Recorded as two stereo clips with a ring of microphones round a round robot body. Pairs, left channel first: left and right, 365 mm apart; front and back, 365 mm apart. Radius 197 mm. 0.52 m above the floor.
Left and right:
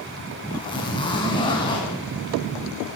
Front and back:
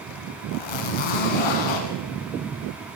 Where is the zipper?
10° left, 5 m.